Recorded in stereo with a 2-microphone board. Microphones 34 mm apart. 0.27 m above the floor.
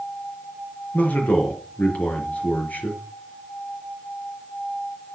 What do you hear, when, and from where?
0.9 s a man speaking: 50° left (ahead or behind), 5 m